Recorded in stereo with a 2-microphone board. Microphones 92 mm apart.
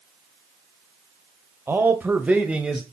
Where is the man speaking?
25° right (ahead or behind), 1.0 m; by 2.8 s 5° right (ahead or behind), 1.4 m.